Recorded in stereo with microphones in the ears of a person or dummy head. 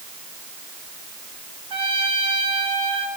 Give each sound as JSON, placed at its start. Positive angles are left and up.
{"t": 1.7, "sound": "a trumpet", "side_deg": -25, "distance_m": 7.5}